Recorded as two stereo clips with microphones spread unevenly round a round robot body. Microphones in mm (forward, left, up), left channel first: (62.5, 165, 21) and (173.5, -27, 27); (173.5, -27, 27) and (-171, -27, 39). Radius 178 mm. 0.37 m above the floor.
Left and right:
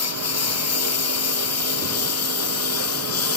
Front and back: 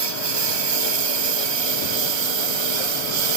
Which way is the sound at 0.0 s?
160° left.